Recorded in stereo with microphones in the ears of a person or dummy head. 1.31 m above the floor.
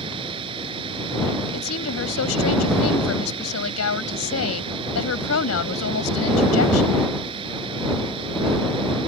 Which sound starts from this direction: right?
A machine running, at 0.0 s.